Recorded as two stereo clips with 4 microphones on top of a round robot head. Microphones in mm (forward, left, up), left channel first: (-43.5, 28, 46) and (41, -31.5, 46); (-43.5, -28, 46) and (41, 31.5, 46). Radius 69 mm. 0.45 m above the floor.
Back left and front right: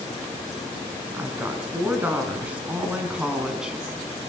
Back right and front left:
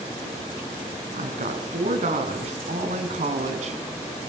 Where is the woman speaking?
35° left, 6 m; by 3.8 s 50° left, 5 m.